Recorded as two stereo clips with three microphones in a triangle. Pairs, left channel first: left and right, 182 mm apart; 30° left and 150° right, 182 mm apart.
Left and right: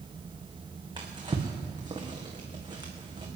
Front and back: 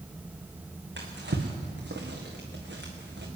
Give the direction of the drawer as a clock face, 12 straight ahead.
5 o'clock.